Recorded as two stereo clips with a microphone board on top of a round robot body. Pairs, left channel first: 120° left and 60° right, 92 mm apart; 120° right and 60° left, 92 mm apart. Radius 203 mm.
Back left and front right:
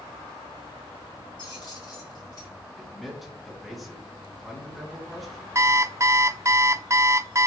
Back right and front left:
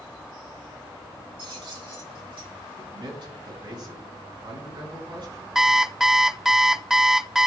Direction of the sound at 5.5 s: 25° right.